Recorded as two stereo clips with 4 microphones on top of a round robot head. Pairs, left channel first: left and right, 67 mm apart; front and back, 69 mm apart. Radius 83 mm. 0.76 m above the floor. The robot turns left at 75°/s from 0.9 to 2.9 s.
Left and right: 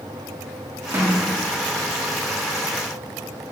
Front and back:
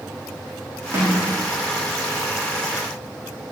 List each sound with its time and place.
0.9 s a snare drum: 135° right, 1.7 m; by 1.2 s 155° right, 1.7 m